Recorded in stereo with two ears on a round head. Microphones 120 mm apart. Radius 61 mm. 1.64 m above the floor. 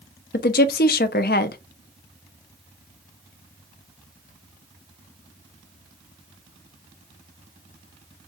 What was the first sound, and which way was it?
A woman speaking, 80° left.